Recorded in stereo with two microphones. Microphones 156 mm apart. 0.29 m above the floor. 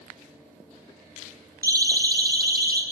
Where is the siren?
75° right (ahead or behind), 5 m; by 2.8 s 80° right, 6.5 m.